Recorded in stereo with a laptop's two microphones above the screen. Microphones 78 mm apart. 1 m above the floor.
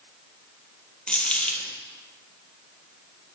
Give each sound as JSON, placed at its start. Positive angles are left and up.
{"t": 1.1, "sound": "a dropped coin", "side_deg": 15, "distance_m": 1.3}